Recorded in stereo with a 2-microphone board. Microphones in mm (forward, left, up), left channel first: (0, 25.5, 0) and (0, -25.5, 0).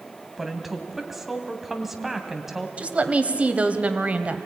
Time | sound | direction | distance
0.4 | a woman speaking | 5° right (ahead or behind) | 2 m
2.8 | a woman speaking | 30° right (ahead or behind) | 1.3 m